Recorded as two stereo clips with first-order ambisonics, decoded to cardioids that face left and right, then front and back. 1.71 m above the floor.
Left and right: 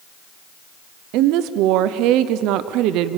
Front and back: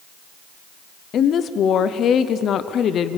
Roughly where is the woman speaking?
Ahead right.